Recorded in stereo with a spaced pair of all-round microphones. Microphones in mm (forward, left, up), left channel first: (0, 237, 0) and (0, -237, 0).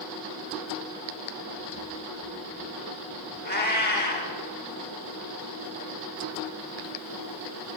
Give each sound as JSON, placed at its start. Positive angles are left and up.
{"t": 3.5, "sound": "a cat meowing", "side_deg": 20, "distance_m": 0.8}